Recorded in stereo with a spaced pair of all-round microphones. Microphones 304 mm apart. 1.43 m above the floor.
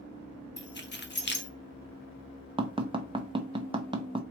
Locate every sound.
0.6 s keys jangling: 35° left (ahead or behind), 0.7 m
2.6 s tapping: 15° right (ahead or behind), 0.6 m